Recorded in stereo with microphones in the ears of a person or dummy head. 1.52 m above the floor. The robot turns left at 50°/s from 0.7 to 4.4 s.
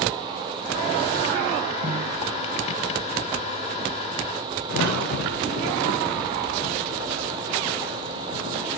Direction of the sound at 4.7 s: 55° left (ahead or behind).